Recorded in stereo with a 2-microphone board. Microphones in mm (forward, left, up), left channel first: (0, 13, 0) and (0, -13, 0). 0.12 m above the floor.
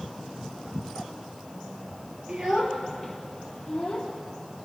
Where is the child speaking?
35° right (ahead or behind), 1.8 m; by 4.1 s 15° left (ahead or behind), 3 m.